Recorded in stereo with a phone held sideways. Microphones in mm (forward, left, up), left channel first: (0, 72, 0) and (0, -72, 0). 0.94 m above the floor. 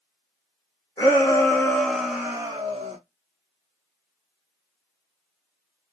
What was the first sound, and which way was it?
A shout, 30° left (ahead or behind).